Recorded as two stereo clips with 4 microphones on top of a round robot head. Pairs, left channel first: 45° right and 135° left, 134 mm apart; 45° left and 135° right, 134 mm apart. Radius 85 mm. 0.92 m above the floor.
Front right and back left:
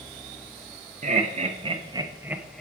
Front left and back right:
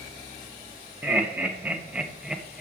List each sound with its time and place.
1.0 s laughter: 150° left, 1.5 m; by 2.6 s 45° right, 0.8 m